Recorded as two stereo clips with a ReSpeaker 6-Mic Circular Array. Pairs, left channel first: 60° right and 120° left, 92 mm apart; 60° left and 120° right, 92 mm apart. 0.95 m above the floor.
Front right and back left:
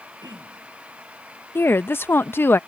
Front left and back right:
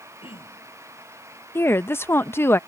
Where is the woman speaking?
Straight ahead.